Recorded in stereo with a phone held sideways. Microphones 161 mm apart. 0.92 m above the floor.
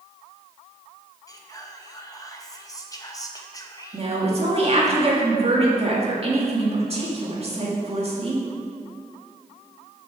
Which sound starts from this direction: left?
Whispering, at 1.3 s.